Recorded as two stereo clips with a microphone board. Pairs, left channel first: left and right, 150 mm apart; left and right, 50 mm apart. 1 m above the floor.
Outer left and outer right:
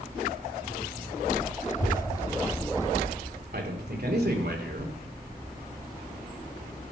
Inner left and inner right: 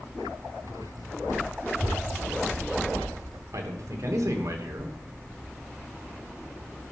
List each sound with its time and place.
1.7 s a child speaking: 45° left (ahead or behind), 1.2 m; by 3.4 s centre (ahead or behind), 1.7 m
3.5 s a man speaking: 85° right, 2.5 m